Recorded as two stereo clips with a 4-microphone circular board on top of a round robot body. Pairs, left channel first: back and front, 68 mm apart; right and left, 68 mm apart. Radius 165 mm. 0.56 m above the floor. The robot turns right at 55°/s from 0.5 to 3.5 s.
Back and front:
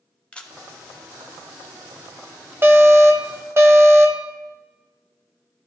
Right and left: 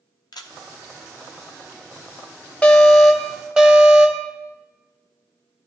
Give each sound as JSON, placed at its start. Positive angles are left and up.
{"t": 0.3, "sound": "a camera shutter", "azimuth_deg": -105, "distance_m": 0.8}
{"t": 2.6, "sound": "an alarm", "azimuth_deg": -25, "distance_m": 1.3}